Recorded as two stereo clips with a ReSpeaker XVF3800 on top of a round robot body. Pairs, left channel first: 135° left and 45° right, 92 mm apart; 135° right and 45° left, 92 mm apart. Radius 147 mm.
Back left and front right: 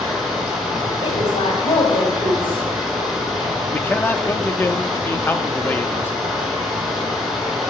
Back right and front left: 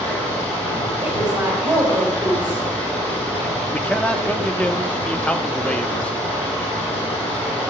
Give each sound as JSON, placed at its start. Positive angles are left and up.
{"t": 0.0, "sound": "running water", "azimuth_deg": -135, "distance_m": 7.0}
{"t": 1.0, "sound": "a woman speaking", "azimuth_deg": 130, "distance_m": 3.5}
{"t": 3.7, "sound": "a man speaking", "azimuth_deg": 165, "distance_m": 0.9}